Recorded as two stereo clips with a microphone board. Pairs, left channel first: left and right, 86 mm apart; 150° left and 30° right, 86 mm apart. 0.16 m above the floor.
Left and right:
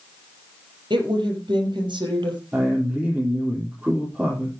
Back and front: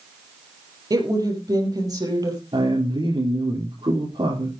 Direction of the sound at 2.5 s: 15° right.